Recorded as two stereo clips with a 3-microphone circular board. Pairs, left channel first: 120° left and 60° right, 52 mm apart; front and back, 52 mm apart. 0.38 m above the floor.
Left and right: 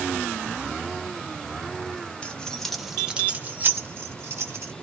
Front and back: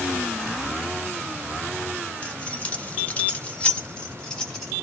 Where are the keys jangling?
65° left, 0.7 m; by 4.7 s 75° right, 1.0 m.